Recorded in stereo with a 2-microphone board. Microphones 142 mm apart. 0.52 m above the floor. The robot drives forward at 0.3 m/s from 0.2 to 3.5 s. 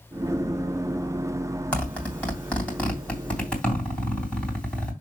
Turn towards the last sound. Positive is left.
turn(degrees=10)  # may be behind; listen again after turning